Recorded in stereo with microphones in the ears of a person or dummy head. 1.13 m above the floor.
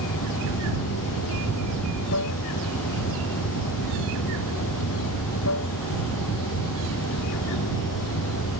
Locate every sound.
0.0 s running water: 65° left (ahead or behind)